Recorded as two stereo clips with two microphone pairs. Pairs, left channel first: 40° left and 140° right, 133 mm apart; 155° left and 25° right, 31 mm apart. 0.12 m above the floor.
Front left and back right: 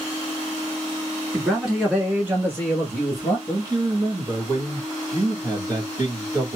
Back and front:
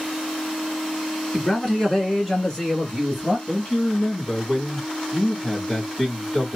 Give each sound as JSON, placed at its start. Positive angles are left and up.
{"t": 1.3, "sound": "a man speaking", "azimuth_deg": 135, "distance_m": 1.5}
{"t": 3.5, "sound": "a man speaking", "azimuth_deg": -175, "distance_m": 1.5}